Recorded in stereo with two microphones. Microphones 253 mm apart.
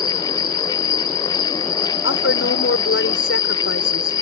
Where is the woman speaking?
60° left (ahead or behind).